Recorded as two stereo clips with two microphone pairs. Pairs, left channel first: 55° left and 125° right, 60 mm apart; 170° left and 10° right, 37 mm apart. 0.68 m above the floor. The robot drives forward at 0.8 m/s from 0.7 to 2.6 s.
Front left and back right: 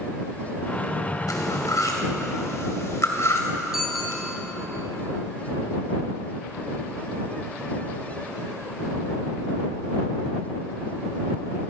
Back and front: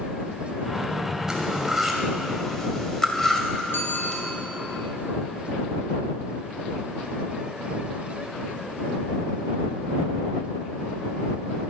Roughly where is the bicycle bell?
Behind left.